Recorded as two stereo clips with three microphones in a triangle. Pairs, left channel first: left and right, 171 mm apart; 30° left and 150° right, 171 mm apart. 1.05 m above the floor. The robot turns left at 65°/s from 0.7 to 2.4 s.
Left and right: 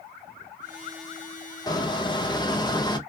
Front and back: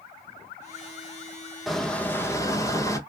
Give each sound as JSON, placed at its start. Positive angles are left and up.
{"t": 1.7, "sound": "a squeak", "azimuth_deg": 120, "distance_m": 0.6}